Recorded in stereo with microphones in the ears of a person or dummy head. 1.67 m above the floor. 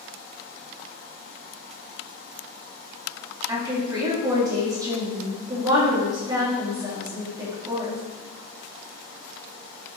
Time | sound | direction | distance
3.5 | a woman speaking | 20° right (ahead or behind) | 3 m